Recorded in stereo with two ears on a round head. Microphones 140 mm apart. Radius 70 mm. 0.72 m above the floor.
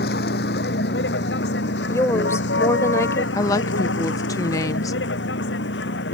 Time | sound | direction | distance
0.0 | a vehicle | 65° left (ahead or behind) | ?
1.9 | a woman speaking | 20° left (ahead or behind) | ?
3.4 | a woman speaking | 20° left (ahead or behind) | ?